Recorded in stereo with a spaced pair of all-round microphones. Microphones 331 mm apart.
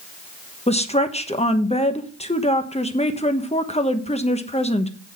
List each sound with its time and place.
0.7 s a woman speaking: 20° left (ahead or behind), 1.1 m